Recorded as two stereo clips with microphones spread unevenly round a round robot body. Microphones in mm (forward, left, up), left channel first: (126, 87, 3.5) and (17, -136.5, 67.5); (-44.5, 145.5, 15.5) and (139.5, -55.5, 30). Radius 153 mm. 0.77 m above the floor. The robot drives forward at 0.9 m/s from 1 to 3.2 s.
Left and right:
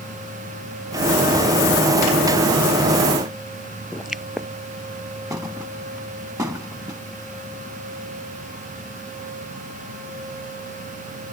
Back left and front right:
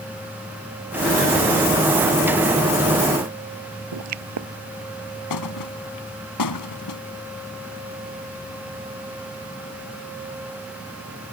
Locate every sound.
3.9 s a pop: 30° right
5.3 s a thud: 165° left